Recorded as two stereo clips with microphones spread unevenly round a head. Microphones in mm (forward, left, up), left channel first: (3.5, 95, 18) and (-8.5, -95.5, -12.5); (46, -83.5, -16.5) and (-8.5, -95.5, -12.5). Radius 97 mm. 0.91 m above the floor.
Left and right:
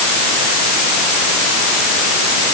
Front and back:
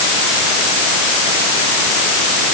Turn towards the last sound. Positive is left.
No sound to turn to.